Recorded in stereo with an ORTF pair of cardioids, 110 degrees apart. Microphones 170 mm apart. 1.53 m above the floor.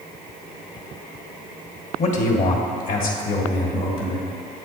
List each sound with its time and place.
2.0 s a man speaking: 45° left, 1.3 m; by 4.3 s 70° left, 2.5 m